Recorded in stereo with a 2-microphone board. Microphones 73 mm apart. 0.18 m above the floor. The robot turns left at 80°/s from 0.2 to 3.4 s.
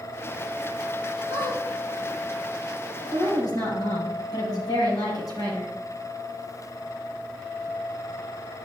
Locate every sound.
1.3 s a squeak: 60° right (ahead or behind), 2.5 m; by 1.6 s 85° right, 2.5 m
3.1 s a woman speaking: 40° left (ahead or behind), 4 m; by 5.7 s 60° left (ahead or behind), 4 m